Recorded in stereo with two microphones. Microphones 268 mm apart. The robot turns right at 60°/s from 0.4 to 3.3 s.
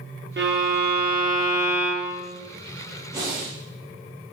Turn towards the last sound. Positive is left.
turn(degrees=-5)  # may be behind; listen again after turning